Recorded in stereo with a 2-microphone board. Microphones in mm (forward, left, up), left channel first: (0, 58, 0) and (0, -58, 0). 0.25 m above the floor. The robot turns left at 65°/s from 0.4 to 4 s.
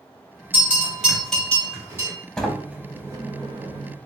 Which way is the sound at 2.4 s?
10° left.